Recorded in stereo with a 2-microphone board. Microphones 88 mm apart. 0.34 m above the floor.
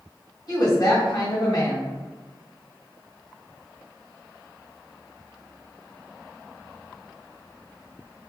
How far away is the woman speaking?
About 1.5 m.